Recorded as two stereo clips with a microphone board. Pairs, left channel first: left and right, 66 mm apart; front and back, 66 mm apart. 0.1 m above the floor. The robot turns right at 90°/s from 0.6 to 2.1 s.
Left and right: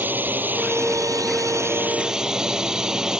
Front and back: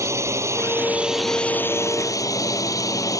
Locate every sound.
0.0 s a drone: 145° right; by 3.2 s 10° right